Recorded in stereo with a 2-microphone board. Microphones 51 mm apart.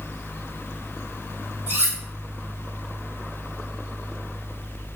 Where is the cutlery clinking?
55° right (ahead or behind), 1.3 m.